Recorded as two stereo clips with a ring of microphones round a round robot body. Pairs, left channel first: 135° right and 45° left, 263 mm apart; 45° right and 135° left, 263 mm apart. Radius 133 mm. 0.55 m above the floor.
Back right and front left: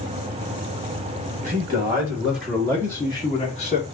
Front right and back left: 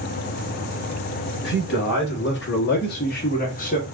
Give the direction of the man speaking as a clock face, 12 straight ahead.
1 o'clock.